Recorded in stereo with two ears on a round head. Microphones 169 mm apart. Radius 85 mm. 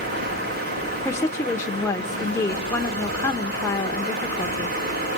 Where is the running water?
55° right (ahead or behind), 5 m.